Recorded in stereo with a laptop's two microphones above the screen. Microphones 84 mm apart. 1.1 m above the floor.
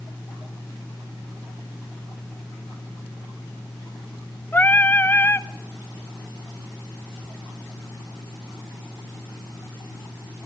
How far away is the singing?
About 0.8 m.